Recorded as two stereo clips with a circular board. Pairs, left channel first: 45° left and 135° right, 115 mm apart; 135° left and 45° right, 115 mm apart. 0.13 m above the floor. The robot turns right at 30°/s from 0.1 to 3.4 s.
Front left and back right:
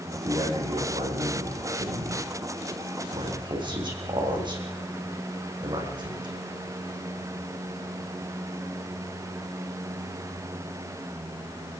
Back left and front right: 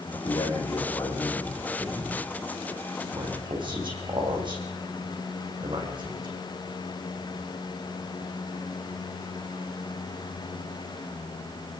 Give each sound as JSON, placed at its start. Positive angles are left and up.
{"t": 0.1, "sound": "a man speaking", "azimuth_deg": 170, "distance_m": 6.5}